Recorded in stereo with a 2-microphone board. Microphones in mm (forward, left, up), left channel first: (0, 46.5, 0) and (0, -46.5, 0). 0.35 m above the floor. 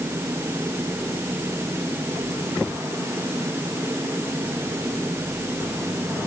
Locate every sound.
Only background noise.